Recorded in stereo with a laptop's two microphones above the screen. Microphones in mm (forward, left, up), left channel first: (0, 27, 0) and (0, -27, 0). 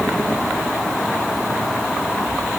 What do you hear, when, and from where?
Only background noise.